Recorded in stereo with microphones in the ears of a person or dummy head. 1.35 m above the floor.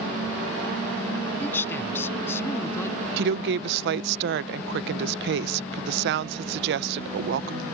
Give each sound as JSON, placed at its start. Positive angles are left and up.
{"t": 1.4, "sound": "a man speaking", "side_deg": 10}
{"t": 3.2, "sound": "a woman speaking", "side_deg": -65}